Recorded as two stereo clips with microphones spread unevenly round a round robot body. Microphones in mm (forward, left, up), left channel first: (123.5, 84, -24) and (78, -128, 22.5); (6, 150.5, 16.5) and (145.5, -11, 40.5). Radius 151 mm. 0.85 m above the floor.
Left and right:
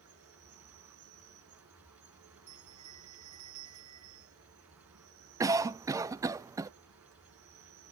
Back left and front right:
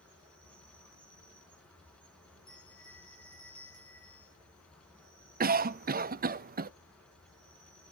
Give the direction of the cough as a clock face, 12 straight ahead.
1 o'clock.